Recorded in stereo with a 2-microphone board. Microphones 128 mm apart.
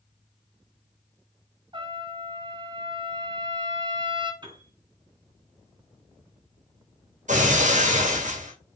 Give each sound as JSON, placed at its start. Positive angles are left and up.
{"t": 1.7, "sound": "a trumpet", "side_deg": -35, "distance_m": 0.8}
{"t": 4.4, "sound": "a piano", "side_deg": -35, "distance_m": 1.6}
{"t": 7.3, "sound": "breaking glass", "side_deg": -65, "distance_m": 1.8}